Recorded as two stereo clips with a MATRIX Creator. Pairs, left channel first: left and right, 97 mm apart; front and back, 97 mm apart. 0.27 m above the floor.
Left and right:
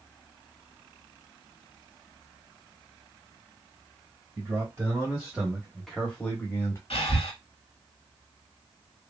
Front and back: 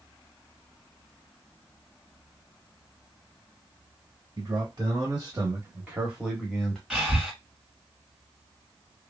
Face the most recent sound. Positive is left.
turn(degrees=100)